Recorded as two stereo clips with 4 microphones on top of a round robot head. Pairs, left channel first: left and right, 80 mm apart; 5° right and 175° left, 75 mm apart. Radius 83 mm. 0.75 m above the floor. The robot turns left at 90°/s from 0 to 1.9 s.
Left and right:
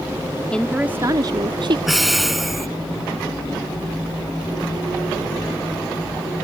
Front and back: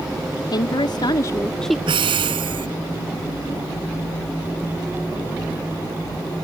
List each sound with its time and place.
0.5 s a woman speaking: 15° left; by 1.8 s 100° right
1.9 s breathing: 175° right; by 2.7 s straight behind